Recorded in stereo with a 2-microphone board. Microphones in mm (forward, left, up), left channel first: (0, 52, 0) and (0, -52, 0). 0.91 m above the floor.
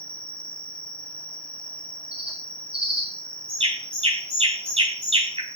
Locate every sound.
0.0 s an insect: 50° left (ahead or behind), 1.1 m
2.1 s a bird: 65° right (ahead or behind), 3.5 m